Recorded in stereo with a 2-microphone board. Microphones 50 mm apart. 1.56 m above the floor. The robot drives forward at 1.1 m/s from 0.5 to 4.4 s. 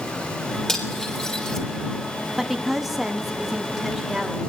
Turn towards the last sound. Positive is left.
turn(degrees=0)  # may be behind; listen again after turning